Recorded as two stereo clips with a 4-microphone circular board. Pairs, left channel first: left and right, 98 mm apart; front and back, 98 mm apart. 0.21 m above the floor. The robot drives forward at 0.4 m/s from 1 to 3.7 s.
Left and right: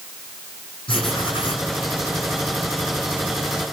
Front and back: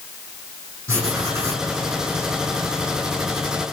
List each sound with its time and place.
0.9 s writing: 120° left, 6.5 m; by 1.7 s 125° left, 6.5 m